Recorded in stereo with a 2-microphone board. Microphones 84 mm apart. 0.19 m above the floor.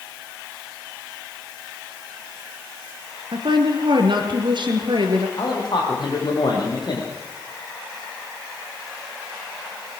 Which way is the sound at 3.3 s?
65° right (ahead or behind).